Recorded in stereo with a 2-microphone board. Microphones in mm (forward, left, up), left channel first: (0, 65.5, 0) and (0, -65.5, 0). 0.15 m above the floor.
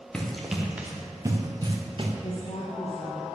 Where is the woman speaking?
65° left (ahead or behind), 4.5 m.